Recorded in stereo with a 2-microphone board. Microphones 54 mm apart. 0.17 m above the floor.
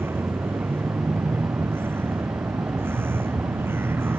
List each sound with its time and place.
0.0 s a vehicle: 45° right (ahead or behind)